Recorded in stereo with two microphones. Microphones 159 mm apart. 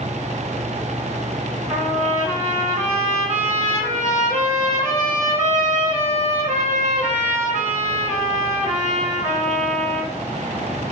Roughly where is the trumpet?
Right.